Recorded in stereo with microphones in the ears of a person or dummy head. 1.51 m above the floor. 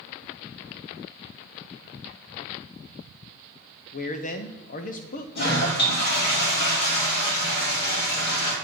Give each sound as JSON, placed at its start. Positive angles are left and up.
{"t": 3.9, "sound": "a man speaking", "side_deg": 45, "distance_m": 0.9}
{"t": 5.3, "sound": "a toilet flushing", "side_deg": 55, "distance_m": 3.0}